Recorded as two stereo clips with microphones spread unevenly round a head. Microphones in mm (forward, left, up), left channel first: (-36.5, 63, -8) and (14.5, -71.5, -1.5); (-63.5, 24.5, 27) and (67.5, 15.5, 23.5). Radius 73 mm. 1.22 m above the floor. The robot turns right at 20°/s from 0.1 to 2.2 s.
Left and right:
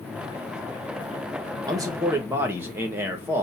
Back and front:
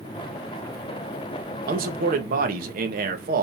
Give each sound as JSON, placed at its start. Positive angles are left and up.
{"t": 1.7, "sound": "a man speaking", "azimuth_deg": -5, "distance_m": 1.0}